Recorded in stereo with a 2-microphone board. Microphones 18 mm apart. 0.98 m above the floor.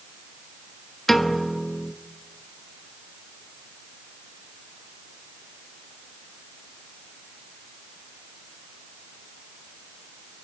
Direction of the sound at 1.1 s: 15° left (ahead or behind).